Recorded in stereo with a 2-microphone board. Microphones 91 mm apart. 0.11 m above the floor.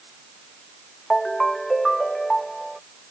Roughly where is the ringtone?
Centre.